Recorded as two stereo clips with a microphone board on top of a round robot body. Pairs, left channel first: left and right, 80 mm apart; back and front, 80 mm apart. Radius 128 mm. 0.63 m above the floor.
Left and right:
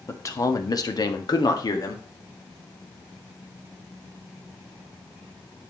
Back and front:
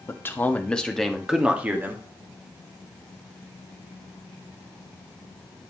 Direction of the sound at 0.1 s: 130° left.